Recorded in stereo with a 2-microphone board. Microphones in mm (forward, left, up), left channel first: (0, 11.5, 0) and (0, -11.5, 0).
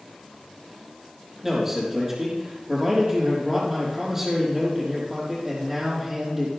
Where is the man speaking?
15° right (ahead or behind), 5 m.